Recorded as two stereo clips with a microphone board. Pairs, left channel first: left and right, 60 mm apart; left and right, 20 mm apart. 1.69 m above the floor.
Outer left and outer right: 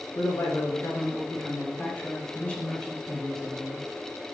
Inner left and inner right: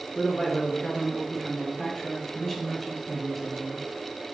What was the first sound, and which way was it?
A man speaking, 55° left (ahead or behind).